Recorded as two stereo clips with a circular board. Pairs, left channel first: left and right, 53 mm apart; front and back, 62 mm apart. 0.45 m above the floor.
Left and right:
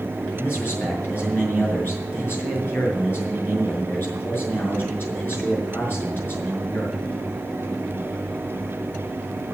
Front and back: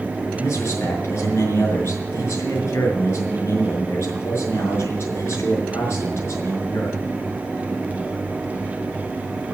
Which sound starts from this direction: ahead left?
A man speaking, at 0.3 s.